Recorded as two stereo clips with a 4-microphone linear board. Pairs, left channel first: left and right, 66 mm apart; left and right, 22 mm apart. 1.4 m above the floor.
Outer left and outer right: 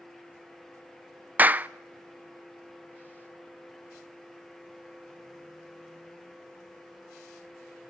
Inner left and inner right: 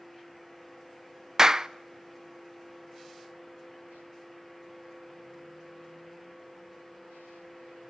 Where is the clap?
25° right (ahead or behind), 0.5 m.